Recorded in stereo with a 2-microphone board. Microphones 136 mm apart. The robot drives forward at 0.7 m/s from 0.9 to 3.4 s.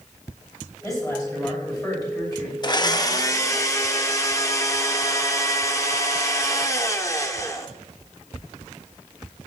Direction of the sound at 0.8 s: 25° left (ahead or behind).